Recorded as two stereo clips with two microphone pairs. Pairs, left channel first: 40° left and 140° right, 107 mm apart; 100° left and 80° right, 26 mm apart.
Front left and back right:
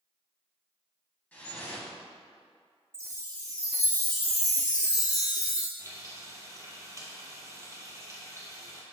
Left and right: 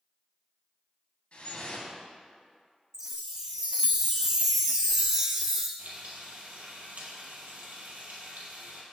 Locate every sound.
1.3 s dripping: 110° left, 1.3 m
2.9 s a chime: 15° right, 0.9 m
5.8 s frying: 80° right, 1.4 m